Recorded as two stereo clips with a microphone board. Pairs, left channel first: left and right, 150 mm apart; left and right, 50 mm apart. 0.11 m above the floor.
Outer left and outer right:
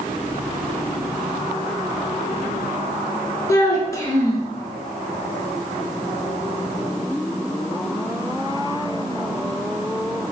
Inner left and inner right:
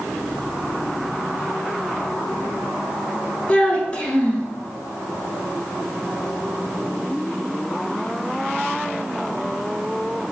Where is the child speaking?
20° left (ahead or behind), 0.8 m.